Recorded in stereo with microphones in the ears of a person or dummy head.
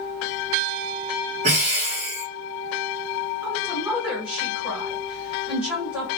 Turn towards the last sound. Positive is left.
turn(degrees=-10)  # may be behind; listen again after turning